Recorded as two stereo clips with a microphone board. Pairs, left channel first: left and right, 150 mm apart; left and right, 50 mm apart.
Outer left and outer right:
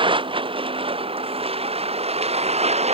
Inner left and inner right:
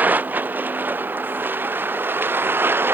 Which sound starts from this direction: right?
A vehicle, at 0.0 s.